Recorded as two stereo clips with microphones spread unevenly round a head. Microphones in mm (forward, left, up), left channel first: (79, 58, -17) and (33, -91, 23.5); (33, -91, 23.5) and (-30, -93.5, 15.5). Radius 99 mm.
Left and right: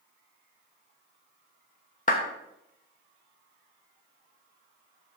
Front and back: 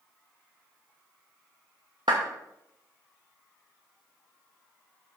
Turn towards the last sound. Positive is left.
turn(degrees=130)